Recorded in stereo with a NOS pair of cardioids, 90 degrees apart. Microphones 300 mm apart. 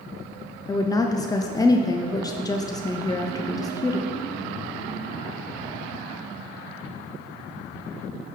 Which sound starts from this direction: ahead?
A woman speaking, at 0.7 s.